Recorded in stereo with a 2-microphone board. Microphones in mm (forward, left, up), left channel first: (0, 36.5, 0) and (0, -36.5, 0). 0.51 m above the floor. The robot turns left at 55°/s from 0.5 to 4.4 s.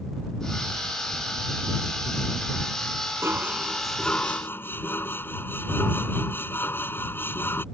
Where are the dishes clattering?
145° right; by 7.7 s 150° left.